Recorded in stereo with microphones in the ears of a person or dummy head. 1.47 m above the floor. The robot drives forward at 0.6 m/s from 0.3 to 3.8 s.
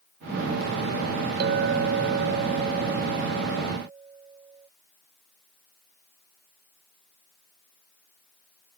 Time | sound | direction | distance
1.4 | a clink | 55° right (ahead or behind) | ?